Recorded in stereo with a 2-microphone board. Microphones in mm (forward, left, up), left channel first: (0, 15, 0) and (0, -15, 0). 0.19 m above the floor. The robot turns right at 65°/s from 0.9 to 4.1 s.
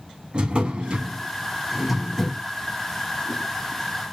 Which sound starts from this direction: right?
A drawer, at 0.3 s.